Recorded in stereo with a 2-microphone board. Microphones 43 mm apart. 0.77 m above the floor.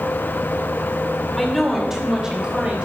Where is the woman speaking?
5° left (ahead or behind), 2.5 m; by 2.9 s 25° right (ahead or behind), 4.5 m.